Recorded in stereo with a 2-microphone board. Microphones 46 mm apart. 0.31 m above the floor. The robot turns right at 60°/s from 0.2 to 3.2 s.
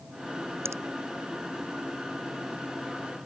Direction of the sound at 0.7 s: 70° right (ahead or behind).